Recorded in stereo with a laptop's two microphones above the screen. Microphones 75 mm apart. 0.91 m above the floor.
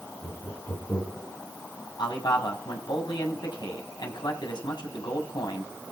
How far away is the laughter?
About 7.5 m.